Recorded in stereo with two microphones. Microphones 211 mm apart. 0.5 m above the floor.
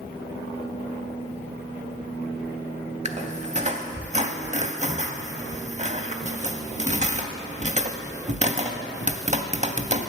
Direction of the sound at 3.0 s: 35° right (ahead or behind).